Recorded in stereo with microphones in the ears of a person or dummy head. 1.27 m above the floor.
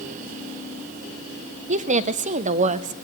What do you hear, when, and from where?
1.7 s a woman speaking: 35° right (ahead or behind), 0.5 m